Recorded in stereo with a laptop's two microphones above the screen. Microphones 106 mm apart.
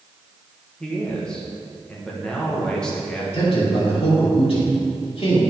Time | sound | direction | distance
0.8 | a man speaking | 10° left (ahead or behind) | 1.2 m
3.3 | a man speaking | 65° left (ahead or behind) | 2 m